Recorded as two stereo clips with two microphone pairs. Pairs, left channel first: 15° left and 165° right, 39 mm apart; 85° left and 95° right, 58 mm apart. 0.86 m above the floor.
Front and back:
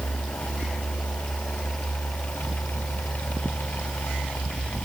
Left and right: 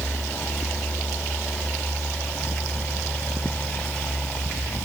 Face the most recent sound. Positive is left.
No sound to turn to.